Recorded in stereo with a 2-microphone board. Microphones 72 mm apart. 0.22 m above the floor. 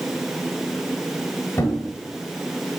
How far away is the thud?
About 1.6 m.